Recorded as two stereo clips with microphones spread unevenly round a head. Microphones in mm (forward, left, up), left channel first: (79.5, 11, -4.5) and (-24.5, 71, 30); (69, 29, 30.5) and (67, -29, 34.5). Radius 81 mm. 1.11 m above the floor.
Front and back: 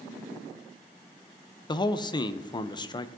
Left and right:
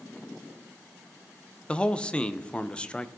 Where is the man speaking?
15° left, 0.6 m.